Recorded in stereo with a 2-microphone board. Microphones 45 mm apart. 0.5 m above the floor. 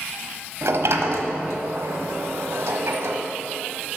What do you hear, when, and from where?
0.6 s a sliding door: 80° right, 1.2 m